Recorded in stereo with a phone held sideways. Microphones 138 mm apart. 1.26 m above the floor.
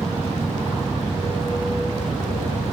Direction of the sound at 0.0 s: 40° right (ahead or behind).